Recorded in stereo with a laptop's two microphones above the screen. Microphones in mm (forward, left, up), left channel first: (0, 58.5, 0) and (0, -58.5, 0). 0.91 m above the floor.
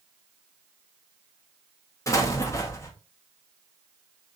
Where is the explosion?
30° left (ahead or behind), 0.8 m.